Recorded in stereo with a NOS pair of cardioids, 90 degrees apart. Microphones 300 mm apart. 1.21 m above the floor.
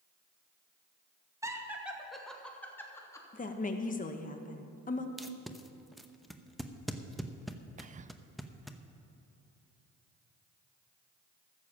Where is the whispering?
25° right, 0.5 m.